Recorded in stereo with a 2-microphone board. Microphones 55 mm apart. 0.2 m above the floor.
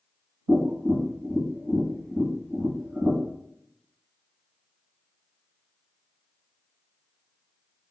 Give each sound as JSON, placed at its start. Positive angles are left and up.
{"t": 0.5, "sound": "tapping", "side_deg": -5, "distance_m": 1.7}